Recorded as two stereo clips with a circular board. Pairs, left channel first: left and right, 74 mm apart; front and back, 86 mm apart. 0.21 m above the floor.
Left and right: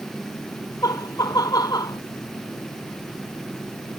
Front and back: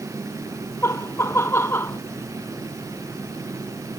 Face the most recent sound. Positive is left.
turn(degrees=60)